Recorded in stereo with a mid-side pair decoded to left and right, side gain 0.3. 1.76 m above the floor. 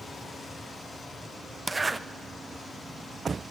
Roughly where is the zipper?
Ahead right.